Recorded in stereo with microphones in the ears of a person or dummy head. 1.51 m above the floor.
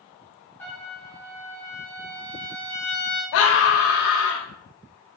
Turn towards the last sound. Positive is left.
turn(degrees=65)  # may be behind; listen again after turning